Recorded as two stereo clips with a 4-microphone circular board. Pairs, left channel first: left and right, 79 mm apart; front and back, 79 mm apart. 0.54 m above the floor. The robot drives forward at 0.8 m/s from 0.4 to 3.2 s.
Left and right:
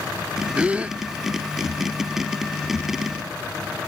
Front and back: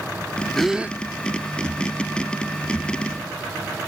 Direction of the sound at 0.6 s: 75° right.